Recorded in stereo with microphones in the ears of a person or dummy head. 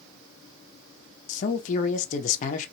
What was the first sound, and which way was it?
A man speaking, 45° left (ahead or behind).